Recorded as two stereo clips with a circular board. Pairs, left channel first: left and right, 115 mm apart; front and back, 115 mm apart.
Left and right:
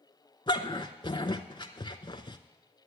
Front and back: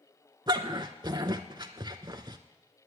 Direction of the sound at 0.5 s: 130° left.